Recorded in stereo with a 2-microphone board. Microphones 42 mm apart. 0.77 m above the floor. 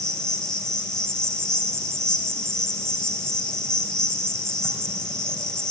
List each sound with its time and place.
0.0 s an insect: 10° left (ahead or behind), 2.5 m